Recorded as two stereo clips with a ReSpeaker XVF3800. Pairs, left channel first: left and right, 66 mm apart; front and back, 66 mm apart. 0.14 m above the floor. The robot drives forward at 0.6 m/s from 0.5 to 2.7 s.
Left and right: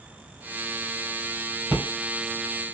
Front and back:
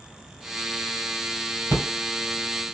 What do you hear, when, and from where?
1.7 s a rattle: 155° right, 2.5 m; by 1.9 s 160° right, 2.5 m